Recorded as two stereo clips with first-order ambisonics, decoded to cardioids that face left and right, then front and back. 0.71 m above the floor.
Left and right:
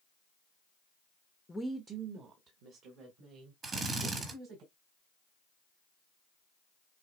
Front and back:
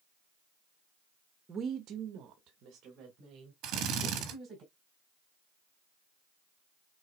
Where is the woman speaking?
150° left, 0.6 m; by 4.6 s 125° right, 3.5 m.